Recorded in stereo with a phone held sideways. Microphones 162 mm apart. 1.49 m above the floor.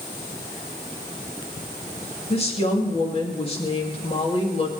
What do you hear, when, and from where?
2.3 s a woman speaking: 35° left (ahead or behind), 2.5 m